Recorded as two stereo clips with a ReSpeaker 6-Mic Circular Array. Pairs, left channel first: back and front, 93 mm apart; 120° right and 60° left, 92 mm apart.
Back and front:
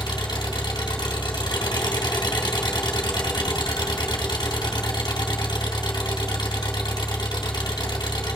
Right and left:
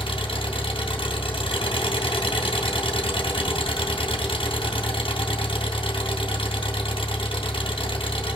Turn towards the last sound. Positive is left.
turn(degrees=-140)